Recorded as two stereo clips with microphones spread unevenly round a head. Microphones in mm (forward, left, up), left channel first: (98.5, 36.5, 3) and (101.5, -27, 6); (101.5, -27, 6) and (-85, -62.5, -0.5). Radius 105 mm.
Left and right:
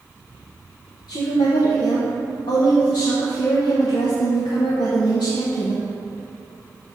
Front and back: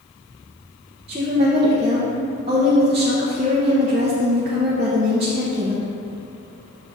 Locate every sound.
1.1 s a woman speaking: 125° left, 0.7 m